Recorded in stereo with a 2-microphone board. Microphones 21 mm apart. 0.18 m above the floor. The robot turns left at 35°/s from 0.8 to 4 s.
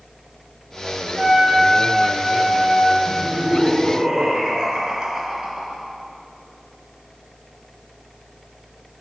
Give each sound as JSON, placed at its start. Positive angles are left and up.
{"t": 1.2, "sound": "a trumpet", "azimuth_deg": -120, "distance_m": 0.9}
{"t": 3.1, "sound": "laughter", "azimuth_deg": -105, "distance_m": 1.8}